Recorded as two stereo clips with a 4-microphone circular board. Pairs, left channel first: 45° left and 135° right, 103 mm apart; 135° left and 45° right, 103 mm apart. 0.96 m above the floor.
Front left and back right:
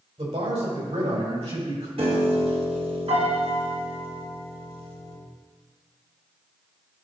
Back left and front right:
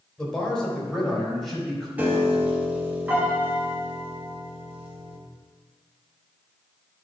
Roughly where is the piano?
Behind right.